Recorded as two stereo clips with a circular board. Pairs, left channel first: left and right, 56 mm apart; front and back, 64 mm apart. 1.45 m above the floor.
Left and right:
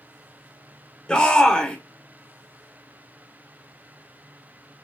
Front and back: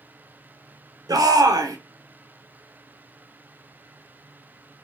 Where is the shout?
160° left, 1.0 m.